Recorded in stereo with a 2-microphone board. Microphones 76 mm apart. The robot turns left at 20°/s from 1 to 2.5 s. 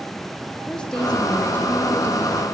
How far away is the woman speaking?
About 5.5 m.